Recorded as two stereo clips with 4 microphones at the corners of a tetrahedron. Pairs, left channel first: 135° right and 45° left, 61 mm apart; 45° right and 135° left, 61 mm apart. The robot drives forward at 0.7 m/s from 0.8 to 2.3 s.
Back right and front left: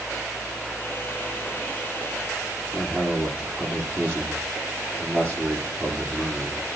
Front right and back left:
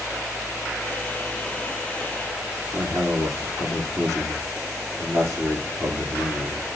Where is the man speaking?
115° left, 8 m.